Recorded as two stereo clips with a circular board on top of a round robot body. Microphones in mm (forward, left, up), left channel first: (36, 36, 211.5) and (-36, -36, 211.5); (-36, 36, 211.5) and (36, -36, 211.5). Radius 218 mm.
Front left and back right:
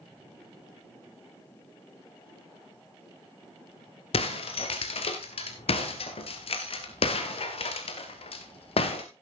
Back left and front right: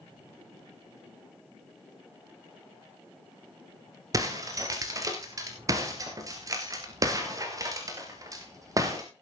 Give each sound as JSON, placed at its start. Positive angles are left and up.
{"t": 4.1, "sound": "breaking glass", "azimuth_deg": 15, "distance_m": 1.6}